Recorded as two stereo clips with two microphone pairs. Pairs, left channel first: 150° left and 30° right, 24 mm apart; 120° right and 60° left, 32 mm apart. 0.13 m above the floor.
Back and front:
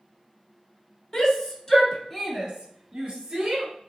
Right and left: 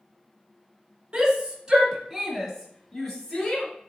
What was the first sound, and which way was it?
A shout, 105° left.